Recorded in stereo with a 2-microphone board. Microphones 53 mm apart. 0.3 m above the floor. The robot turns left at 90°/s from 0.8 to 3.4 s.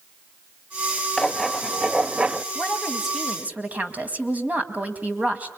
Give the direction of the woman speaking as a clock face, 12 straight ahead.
11 o'clock.